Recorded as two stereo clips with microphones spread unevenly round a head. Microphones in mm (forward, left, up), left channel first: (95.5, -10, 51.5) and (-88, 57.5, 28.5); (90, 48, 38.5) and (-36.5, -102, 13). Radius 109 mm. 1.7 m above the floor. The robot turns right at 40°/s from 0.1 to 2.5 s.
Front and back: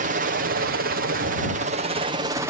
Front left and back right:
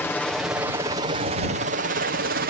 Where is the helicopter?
135° left; by 2.5 s 130° right.